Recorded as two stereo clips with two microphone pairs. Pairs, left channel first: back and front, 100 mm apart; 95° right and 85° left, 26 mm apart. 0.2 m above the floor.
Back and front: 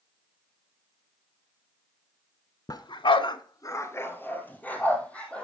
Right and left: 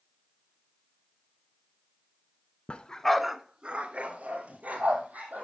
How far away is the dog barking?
About 0.7 m.